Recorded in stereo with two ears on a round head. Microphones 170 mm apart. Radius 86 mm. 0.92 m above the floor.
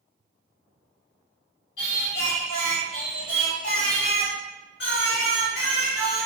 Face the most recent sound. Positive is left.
turn(degrees=60)  # may be behind; listen again after turning